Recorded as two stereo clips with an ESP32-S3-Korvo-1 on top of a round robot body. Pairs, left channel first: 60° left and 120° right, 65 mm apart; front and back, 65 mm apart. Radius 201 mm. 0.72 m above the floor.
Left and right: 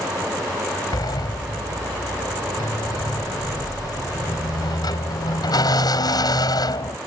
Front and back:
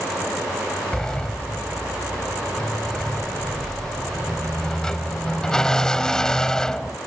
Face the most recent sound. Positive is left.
turn(degrees=80)